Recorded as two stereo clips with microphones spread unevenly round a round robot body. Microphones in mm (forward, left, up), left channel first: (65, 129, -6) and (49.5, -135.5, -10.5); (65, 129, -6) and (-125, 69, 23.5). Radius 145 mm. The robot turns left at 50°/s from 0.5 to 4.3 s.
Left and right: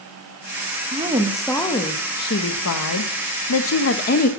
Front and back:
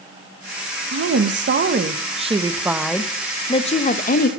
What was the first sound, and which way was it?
A woman speaking, 160° right.